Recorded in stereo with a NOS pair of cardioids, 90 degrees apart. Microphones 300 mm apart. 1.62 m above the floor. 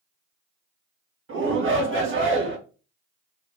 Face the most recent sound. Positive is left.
turn(degrees=-40)